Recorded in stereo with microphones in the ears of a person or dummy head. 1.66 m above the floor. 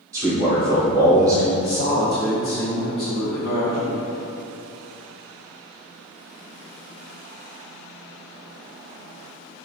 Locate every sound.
0.1 s a man speaking: 15° right (ahead or behind), 1.2 m
1.6 s a man speaking: 25° left (ahead or behind), 0.6 m